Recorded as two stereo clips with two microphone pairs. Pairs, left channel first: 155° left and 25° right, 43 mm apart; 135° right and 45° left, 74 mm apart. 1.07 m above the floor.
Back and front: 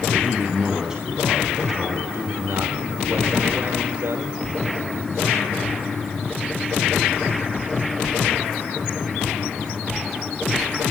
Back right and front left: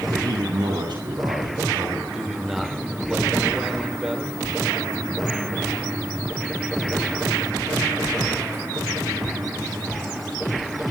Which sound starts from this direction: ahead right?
A man speaking, at 2.1 s.